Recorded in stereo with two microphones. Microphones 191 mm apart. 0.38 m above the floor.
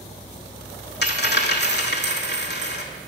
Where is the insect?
15° right (ahead or behind), 2.5 m.